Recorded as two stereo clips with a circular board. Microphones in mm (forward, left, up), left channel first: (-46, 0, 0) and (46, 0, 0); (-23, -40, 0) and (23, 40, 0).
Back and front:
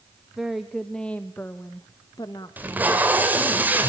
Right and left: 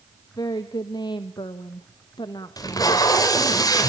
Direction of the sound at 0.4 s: 85° right.